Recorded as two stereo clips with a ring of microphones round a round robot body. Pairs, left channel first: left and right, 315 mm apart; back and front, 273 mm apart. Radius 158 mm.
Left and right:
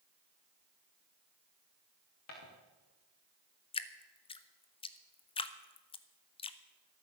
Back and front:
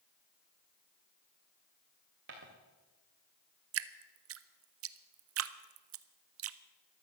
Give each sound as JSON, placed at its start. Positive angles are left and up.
{"t": 2.3, "sound": "footsteps", "azimuth_deg": 45, "distance_m": 4.0}
{"t": 3.7, "sound": "dripping", "azimuth_deg": 20, "distance_m": 0.6}